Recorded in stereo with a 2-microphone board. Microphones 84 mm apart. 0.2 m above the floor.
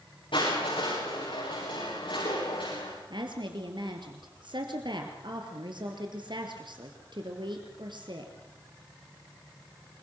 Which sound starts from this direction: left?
Crushing, at 0.3 s.